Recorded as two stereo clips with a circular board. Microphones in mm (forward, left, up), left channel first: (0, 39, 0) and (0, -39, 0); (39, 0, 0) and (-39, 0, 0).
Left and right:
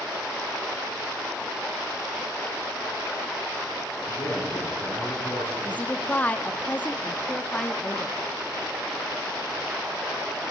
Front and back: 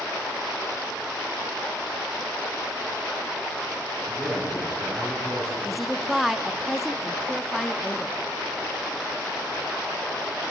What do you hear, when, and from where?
4.1 s a man speaking: 80° left, 5.5 m
5.6 s a woman speaking: 95° left, 0.6 m